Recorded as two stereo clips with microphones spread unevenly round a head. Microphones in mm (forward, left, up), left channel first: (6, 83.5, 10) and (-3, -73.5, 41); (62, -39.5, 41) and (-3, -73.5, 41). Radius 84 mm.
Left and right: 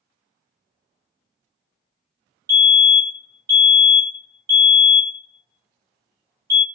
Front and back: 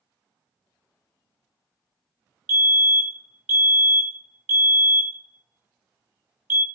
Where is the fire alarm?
160° right, 1.1 m.